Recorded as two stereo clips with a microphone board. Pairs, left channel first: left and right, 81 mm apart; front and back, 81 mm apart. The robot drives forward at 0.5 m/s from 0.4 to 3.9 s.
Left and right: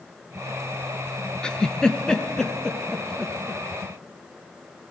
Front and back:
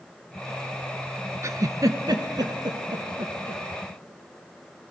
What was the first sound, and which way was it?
A giggle, 165° left.